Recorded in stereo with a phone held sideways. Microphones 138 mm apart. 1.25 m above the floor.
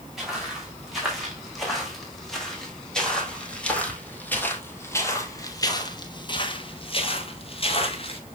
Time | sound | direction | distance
0.2 | footsteps | centre (ahead or behind) | 5 m